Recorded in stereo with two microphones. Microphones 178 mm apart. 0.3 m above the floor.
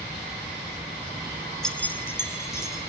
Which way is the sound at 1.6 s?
5° left (ahead or behind).